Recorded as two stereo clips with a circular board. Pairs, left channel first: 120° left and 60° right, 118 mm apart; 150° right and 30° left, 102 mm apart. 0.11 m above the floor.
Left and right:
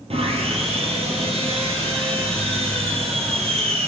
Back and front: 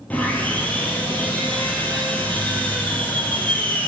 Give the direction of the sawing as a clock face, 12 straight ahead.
3 o'clock.